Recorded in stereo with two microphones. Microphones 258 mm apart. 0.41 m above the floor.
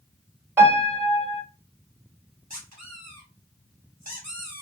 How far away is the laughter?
I don't hear laughter.